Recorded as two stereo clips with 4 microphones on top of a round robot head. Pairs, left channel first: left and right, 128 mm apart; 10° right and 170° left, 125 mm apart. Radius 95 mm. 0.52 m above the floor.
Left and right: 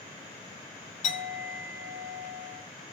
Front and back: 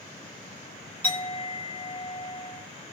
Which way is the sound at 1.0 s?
70° left.